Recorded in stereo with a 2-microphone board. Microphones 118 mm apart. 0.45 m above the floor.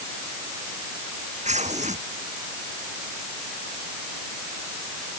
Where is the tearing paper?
75° right (ahead or behind).